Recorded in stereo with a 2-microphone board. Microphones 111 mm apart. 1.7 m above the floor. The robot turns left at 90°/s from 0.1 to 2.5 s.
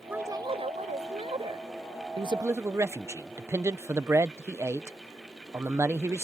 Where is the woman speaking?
15° right; by 1.7 s 155° right.